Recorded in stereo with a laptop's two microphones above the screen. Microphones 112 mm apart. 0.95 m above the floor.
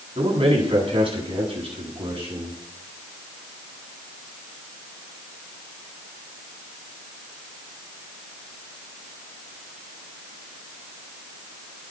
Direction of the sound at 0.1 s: 55° right (ahead or behind).